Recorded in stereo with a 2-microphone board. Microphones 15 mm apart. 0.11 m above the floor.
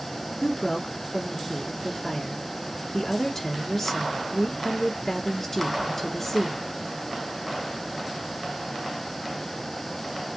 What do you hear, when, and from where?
0.4 s a woman speaking: 25° left (ahead or behind), 1.8 m